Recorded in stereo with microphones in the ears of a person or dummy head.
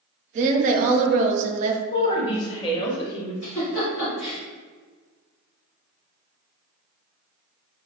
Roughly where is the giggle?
Left.